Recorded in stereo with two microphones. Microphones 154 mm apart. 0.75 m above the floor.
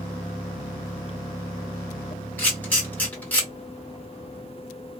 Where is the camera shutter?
10° left (ahead or behind), 1.9 m.